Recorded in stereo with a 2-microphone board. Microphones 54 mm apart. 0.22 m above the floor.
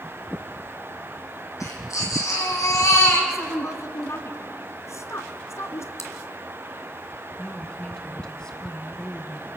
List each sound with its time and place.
1.6 s a baby crying: 75° left (ahead or behind), 5.5 m
3.3 s a woman speaking: 60° left (ahead or behind), 1.9 m
6.0 s chewing: 60° left (ahead or behind), 2.5 m
7.4 s a woman speaking: 15° left (ahead or behind), 2 m